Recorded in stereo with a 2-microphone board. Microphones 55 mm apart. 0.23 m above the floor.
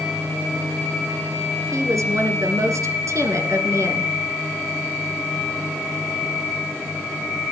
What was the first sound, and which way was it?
A woman speaking, 70° right (ahead or behind).